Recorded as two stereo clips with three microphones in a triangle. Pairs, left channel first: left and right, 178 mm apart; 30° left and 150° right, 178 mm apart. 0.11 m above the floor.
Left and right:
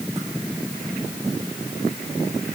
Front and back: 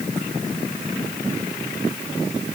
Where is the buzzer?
No buzzer in this recording.